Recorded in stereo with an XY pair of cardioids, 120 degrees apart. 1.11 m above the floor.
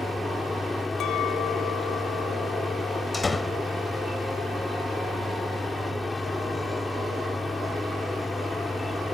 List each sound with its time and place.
0.0 s a machine running: 15° left
1.0 s a clink: 65° left
3.1 s a door slam: 25° left